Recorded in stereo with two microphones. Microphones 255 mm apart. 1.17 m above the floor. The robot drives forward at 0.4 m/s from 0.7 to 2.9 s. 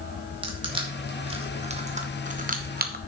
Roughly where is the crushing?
Right.